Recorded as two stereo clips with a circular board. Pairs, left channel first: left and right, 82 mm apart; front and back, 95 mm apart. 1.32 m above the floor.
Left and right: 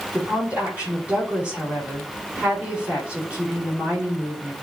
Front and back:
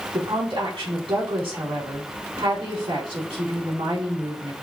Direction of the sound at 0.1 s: 165° right.